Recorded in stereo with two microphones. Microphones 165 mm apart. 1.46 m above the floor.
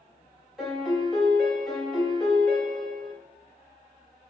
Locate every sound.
0.6 s a piano: centre (ahead or behind), 1.2 m